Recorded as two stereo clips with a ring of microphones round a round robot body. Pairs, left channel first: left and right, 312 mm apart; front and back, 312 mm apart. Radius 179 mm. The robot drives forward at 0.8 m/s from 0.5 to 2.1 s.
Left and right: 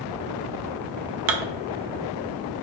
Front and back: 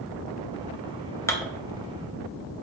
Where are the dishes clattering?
80° right, 0.7 m; by 1.5 s 100° right, 0.7 m.